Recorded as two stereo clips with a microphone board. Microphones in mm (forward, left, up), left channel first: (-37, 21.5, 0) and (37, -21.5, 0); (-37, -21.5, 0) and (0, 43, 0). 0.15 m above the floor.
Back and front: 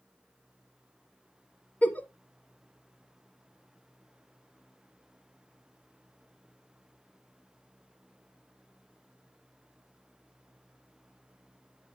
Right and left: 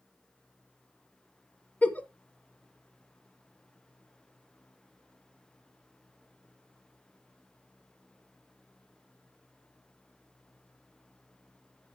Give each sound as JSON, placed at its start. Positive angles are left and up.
{"t": 1.8, "sound": "a giggle", "azimuth_deg": -160, "distance_m": 0.8}